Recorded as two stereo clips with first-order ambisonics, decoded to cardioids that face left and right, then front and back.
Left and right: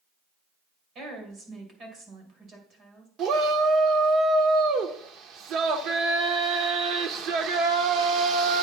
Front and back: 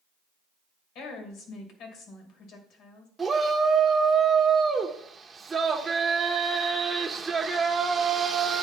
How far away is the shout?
About 0.9 m.